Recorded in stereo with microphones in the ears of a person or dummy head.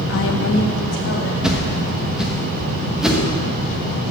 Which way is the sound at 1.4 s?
5° right (ahead or behind).